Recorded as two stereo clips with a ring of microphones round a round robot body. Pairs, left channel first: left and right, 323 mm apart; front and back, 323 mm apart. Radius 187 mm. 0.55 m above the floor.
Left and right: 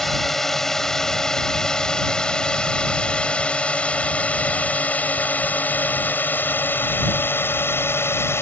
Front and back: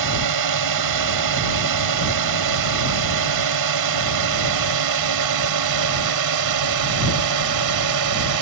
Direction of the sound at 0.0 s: Straight behind.